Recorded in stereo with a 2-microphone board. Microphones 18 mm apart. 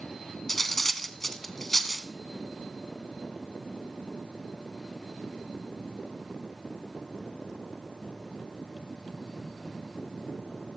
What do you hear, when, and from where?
0.5 s cutlery clinking: 10° left (ahead or behind), 0.8 m